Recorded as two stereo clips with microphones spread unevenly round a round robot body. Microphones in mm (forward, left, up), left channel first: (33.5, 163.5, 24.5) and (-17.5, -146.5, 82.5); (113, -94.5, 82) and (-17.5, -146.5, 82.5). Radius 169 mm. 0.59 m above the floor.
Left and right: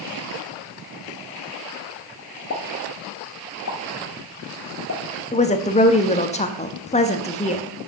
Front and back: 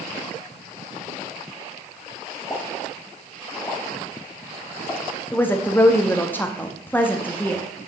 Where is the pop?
100° left, 1.4 m.